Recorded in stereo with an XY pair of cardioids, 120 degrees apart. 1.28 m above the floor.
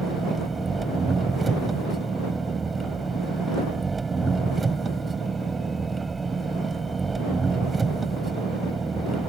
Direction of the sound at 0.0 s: 25° right.